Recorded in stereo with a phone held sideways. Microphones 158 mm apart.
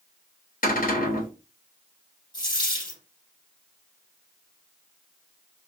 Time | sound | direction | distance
0.6 | a cupboard door | 60° left (ahead or behind) | 1.4 m
2.3 | a dropped coin | 25° left (ahead or behind) | 2.5 m